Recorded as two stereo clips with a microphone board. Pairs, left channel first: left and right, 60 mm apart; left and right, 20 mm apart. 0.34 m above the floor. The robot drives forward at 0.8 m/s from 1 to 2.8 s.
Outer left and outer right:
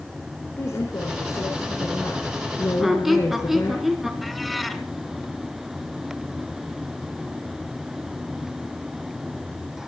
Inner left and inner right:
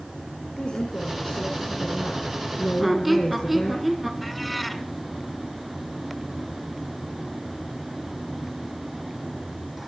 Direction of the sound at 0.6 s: 50° left (ahead or behind).